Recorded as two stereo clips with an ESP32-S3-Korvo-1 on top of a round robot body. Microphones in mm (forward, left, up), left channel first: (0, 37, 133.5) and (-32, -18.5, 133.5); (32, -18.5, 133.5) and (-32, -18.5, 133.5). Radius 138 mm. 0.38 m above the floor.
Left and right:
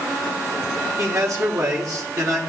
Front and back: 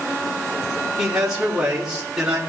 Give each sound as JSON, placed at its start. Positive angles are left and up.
{"t": 1.0, "sound": "a man speaking", "azimuth_deg": -100, "distance_m": 1.7}